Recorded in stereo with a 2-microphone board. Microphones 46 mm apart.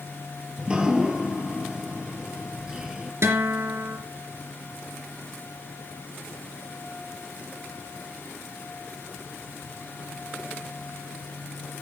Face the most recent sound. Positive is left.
turn(degrees=-65)  # may be behind; listen again after turning